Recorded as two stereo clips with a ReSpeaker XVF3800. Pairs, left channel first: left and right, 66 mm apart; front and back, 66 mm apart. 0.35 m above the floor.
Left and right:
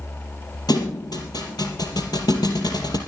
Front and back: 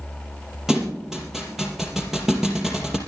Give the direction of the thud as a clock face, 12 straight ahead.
9 o'clock.